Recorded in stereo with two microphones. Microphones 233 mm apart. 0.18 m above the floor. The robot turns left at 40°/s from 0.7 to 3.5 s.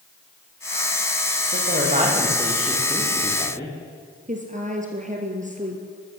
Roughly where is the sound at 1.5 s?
Behind right.